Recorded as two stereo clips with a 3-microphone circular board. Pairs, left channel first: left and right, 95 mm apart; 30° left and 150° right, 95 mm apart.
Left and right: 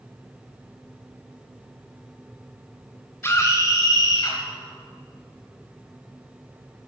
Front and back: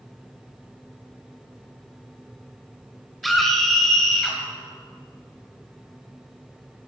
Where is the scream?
120° left, 1.2 m; by 4.4 s 110° left, 1.6 m.